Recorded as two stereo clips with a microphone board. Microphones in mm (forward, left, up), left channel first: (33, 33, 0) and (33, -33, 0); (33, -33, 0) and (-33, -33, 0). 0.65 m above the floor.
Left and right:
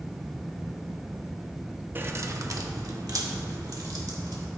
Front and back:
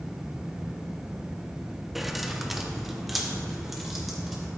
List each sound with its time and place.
1.9 s keys jangling: 95° right, 0.6 m